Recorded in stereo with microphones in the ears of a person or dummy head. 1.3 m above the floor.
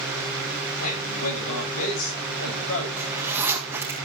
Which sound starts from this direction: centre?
A zipper, at 3.0 s.